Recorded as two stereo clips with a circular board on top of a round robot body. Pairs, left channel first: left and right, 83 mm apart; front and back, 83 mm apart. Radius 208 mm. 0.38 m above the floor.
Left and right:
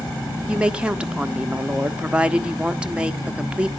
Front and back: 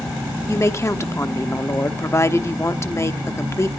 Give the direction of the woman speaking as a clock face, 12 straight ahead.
1 o'clock.